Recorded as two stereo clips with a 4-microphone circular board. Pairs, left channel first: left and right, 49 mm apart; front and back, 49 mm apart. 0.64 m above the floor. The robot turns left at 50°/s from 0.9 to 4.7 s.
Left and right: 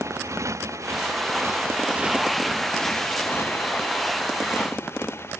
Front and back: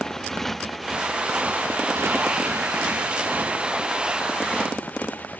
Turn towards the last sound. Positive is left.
turn(degrees=55)